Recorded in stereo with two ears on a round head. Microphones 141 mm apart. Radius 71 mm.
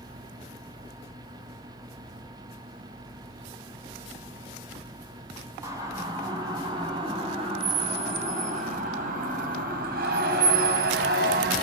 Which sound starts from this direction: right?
A siren, at 5.6 s.